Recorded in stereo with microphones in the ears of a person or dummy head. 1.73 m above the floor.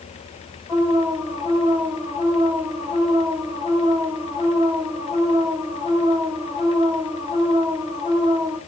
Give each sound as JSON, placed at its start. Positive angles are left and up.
{"t": 0.7, "sound": "an alarm", "side_deg": 5, "distance_m": 9.0}